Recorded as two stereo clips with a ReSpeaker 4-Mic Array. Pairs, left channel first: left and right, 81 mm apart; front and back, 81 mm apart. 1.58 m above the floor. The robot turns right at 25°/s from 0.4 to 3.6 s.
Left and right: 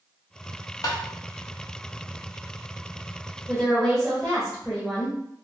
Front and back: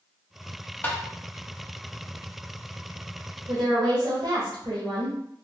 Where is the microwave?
I don't hear a microwave.